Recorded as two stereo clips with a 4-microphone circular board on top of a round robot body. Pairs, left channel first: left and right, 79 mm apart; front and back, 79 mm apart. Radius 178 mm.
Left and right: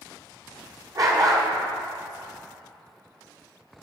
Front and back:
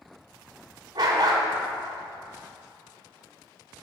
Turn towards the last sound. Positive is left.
turn(degrees=-135)